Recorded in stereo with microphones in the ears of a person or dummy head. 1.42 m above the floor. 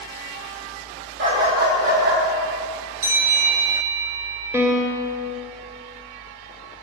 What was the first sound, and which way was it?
A dog barking, 60° right (ahead or behind).